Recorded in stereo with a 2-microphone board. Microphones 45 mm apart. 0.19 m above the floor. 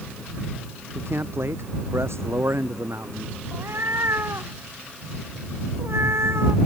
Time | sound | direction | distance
0.9 | a man speaking | 65° right (ahead or behind) | ?
3.5 | a cat meowing | 75° right (ahead or behind) | ?